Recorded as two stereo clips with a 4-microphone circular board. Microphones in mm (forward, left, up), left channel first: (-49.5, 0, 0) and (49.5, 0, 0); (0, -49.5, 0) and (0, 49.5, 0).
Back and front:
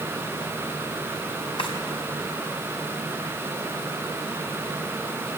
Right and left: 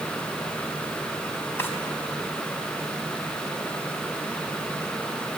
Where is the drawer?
155° right, 4 m.